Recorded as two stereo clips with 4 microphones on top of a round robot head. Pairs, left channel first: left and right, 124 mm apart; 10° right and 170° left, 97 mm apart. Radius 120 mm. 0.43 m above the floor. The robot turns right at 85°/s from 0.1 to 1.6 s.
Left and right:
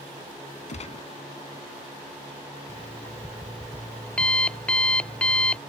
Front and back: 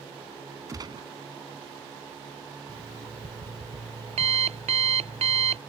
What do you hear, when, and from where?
0.7 s a gunshot: 110° left; by 1.1 s 145° left
2.7 s an alarm clock: 170° left